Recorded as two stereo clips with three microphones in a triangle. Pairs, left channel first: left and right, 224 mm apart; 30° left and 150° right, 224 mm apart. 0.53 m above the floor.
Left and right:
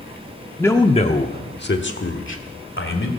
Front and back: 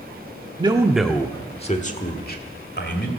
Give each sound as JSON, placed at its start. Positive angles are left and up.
{"t": 0.6, "sound": "a man speaking", "azimuth_deg": 165, "distance_m": 0.9}